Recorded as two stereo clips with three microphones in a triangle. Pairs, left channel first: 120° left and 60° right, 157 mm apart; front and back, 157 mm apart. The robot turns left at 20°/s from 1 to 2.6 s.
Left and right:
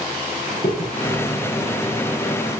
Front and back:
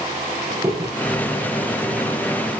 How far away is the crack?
About 7.5 m.